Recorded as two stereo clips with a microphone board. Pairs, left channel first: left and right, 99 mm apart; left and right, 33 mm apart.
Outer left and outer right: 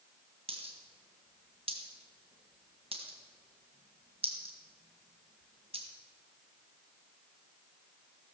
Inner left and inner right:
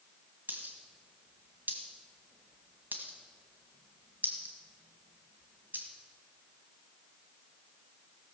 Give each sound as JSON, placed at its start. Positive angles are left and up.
{"t": 0.5, "sound": "a dropped coin", "side_deg": -80, "distance_m": 1.7}